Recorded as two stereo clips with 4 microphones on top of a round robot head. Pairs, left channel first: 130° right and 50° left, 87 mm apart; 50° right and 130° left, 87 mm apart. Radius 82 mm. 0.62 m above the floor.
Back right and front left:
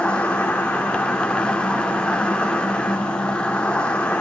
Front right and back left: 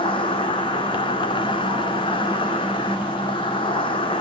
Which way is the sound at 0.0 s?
50° right.